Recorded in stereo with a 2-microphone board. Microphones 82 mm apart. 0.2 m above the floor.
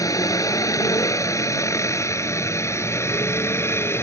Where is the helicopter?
45° left (ahead or behind); by 4.0 s 30° left (ahead or behind).